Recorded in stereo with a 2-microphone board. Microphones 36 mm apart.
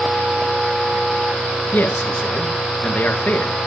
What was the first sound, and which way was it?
A man speaking, 50° left (ahead or behind).